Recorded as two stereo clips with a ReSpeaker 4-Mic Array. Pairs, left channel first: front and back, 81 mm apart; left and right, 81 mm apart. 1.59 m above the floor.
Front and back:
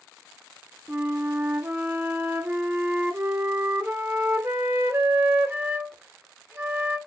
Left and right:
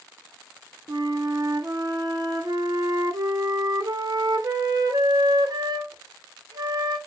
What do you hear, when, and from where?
0.9 s a flute: 120° right, 1.0 m